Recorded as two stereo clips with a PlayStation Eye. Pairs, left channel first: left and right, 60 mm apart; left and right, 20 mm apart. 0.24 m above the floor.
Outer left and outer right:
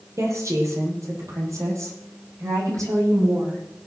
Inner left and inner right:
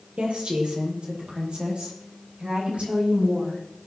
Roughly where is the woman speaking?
Right.